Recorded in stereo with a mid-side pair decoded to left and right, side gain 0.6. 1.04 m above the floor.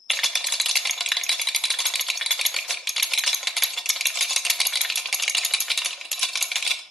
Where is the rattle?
Straight ahead, 0.7 m.